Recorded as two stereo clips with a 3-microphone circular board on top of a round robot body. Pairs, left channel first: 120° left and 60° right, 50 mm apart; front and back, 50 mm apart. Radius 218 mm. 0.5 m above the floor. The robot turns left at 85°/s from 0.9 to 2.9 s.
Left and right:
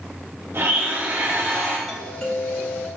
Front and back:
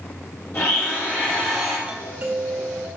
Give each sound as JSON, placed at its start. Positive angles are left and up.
{"t": 0.5, "sound": "a blender", "azimuth_deg": -30, "distance_m": 3.0}
{"t": 1.9, "sound": "a doorbell", "azimuth_deg": -140, "distance_m": 1.7}